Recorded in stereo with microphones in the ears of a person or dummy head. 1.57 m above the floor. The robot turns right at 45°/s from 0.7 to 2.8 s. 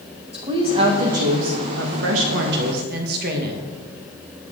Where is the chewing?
No chewing in this recording.